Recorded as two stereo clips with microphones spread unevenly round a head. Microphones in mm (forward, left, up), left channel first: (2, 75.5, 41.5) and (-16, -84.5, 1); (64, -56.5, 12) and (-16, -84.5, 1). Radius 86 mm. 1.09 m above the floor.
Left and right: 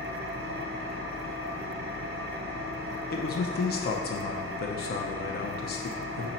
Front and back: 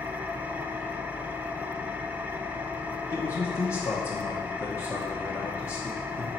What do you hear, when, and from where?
0.0 s an engine running: 90° right, 0.8 m
3.1 s a man speaking: 85° left, 0.8 m